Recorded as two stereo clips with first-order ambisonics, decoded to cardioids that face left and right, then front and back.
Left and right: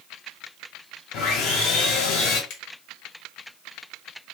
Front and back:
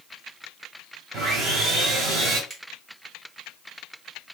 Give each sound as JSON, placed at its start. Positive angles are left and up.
{"t": 1.1, "sound": "sawing", "azimuth_deg": 120, "distance_m": 1.9}
{"t": 2.5, "sound": "a finger snap", "azimuth_deg": 110, "distance_m": 1.7}